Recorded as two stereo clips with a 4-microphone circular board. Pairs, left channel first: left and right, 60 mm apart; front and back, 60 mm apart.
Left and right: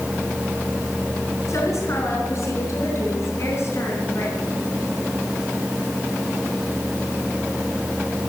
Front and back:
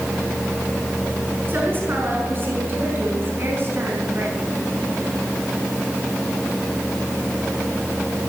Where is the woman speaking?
125° left, 5 m; by 4.4 s 135° left, 4 m.